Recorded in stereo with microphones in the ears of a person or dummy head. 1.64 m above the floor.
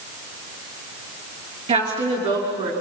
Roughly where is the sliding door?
No sliding door in this recording.